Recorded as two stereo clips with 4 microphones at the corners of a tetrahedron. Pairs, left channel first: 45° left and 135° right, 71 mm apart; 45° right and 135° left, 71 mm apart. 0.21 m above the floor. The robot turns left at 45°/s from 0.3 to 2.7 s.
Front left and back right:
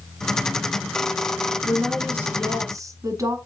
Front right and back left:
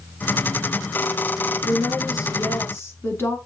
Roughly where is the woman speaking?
Ahead right.